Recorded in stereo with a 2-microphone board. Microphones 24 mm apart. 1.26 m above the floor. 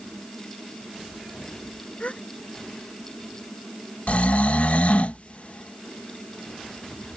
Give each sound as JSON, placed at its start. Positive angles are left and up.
{"t": 2.0, "sound": "a gasp", "side_deg": 60}
{"t": 4.1, "sound": "snoring", "side_deg": 70}